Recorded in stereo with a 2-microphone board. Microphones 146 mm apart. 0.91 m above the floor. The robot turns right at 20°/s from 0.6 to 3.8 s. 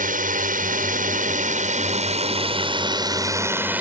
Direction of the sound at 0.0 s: 70° right (ahead or behind).